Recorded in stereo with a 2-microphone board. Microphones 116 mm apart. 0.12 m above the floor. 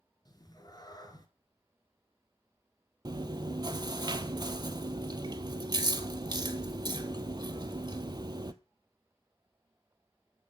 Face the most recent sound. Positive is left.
turn(degrees=-40)  # may be behind; listen again after turning